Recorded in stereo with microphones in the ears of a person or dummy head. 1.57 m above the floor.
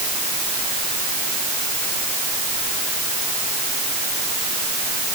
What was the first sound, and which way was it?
Only background noise.